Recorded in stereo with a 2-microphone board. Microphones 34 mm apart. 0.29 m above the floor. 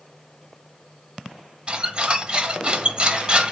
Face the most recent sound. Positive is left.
turn(degrees=-30)  # may be behind; listen again after turning